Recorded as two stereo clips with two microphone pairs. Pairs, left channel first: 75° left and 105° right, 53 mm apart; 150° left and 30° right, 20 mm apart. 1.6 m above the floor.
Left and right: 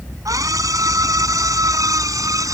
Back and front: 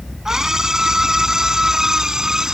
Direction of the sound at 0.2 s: 95° right.